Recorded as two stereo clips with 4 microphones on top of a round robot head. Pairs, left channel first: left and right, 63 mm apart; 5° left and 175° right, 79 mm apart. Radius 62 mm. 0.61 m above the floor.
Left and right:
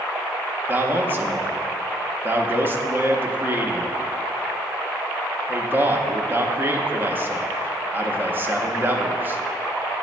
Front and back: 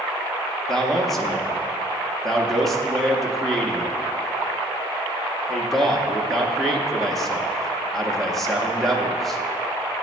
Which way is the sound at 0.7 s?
80° right.